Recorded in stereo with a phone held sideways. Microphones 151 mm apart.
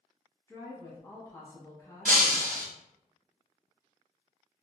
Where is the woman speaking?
25° left (ahead or behind), 1.1 m.